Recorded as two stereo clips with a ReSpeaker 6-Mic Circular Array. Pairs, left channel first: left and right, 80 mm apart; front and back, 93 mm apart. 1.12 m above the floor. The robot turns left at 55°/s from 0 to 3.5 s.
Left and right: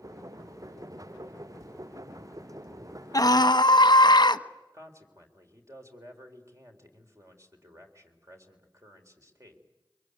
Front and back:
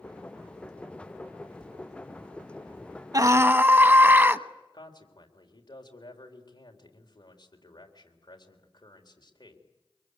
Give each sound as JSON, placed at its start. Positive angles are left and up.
{"t": 1.6, "sound": "tapping", "azimuth_deg": -95, "distance_m": 1.9}
{"t": 3.1, "sound": "a scream", "azimuth_deg": 135, "distance_m": 1.1}
{"t": 4.7, "sound": "a man speaking", "azimuth_deg": -40, "distance_m": 3.5}